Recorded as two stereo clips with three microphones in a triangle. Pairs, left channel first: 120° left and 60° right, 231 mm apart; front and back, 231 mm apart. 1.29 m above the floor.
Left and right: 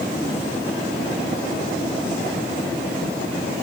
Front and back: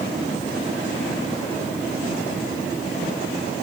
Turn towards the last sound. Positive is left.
No sound to turn to.